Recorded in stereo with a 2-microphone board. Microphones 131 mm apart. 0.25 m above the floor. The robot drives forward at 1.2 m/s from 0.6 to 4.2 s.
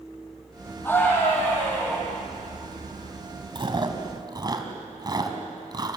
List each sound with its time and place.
0.8 s a scream: 15° left (ahead or behind), 8.5 m
3.5 s chewing: 40° right (ahead or behind), 2 m; by 6.0 s 30° right (ahead or behind), 2.5 m